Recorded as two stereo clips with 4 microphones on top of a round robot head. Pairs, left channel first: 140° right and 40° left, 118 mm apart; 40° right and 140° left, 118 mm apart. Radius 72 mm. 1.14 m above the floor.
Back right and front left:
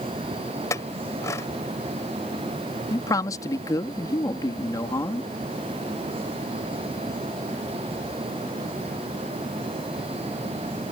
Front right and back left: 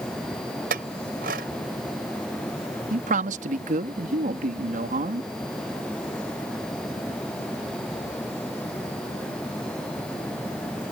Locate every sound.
0.7 s a clink: 150° left
2.9 s a man speaking: 155° left